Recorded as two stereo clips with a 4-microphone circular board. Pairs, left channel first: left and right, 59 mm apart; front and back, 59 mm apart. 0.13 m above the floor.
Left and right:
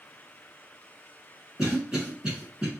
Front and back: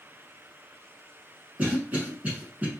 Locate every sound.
1.6 s a cough: 155° right, 1.2 m